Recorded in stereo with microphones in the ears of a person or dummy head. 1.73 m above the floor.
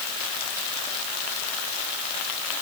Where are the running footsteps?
I don't hear running footsteps.